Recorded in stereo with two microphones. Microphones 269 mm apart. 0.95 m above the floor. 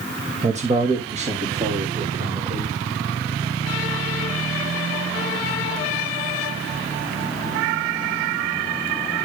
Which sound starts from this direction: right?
A man speaking, at 0.4 s.